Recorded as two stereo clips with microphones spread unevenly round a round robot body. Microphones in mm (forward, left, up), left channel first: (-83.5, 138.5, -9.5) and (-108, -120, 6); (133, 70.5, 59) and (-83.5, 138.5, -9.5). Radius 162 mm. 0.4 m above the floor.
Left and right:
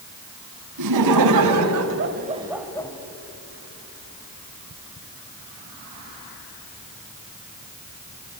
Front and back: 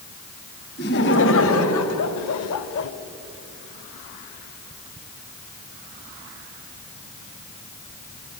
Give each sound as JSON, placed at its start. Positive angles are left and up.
{"t": 0.8, "sound": "laughter", "azimuth_deg": -80, "distance_m": 2.5}